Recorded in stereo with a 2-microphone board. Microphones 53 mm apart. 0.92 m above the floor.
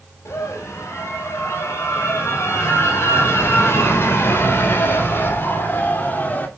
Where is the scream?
60° left (ahead or behind), 6.5 m; by 6.5 s 35° left (ahead or behind), 3 m.